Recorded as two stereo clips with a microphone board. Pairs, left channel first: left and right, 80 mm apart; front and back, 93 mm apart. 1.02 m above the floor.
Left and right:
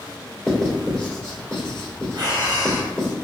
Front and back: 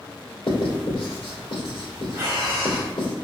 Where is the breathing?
120° right, 1.1 m.